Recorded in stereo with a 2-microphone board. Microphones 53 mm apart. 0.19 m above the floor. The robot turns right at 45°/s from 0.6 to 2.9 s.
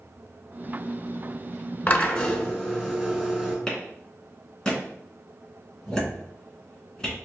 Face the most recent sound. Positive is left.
turn(degrees=15)  # may be behind; listen again after turning